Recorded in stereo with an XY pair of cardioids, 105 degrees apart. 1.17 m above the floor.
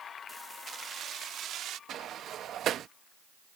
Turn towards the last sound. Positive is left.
turn(degrees=-65)